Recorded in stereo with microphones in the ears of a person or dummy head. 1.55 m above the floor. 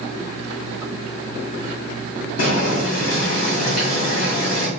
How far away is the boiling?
About 1.8 m.